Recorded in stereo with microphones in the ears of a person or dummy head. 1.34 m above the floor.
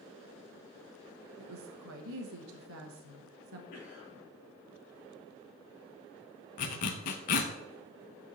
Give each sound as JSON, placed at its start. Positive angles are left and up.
{"t": 1.4, "sound": "a woman speaking", "side_deg": -80, "distance_m": 1.1}
{"t": 3.7, "sound": "a cough", "side_deg": 50, "distance_m": 3.0}
{"t": 6.6, "sound": "a zipper", "side_deg": 45, "distance_m": 0.7}